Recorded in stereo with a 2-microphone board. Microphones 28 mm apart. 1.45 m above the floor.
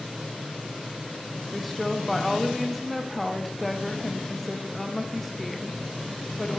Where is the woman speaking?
5° left (ahead or behind), 0.8 m.